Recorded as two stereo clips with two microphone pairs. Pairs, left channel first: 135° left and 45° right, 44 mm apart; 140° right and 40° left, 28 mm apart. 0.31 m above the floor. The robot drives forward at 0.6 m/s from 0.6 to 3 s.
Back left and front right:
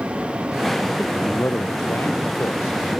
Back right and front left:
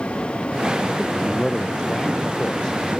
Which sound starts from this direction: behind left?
A man speaking, at 1.0 s.